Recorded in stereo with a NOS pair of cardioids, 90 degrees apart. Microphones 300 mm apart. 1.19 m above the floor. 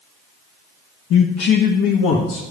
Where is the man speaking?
60° left, 0.9 m; by 2.4 s 65° left, 1.6 m.